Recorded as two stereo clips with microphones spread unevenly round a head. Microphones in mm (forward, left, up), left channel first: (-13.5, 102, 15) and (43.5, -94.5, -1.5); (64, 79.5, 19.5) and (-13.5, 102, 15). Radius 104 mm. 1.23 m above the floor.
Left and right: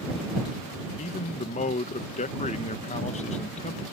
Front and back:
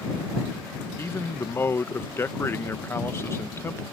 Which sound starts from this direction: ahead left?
A man speaking, at 1.0 s.